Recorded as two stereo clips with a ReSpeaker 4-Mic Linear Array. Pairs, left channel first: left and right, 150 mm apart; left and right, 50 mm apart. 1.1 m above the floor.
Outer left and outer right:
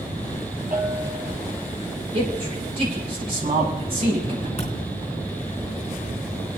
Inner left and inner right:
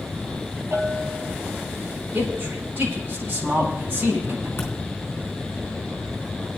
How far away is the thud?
About 3.5 m.